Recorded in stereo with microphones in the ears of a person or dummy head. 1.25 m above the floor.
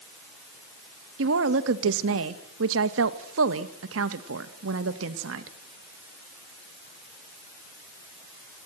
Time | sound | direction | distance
1.2 | a woman speaking | 75° right (ahead or behind) | 1.7 m